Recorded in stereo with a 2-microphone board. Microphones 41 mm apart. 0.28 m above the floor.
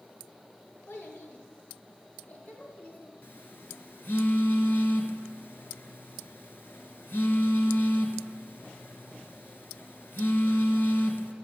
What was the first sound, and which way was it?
A child speaking, 70° left (ahead or behind).